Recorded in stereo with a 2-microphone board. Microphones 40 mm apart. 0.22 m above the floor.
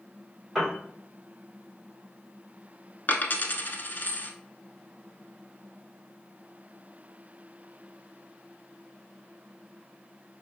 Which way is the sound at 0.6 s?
Centre (ahead or behind).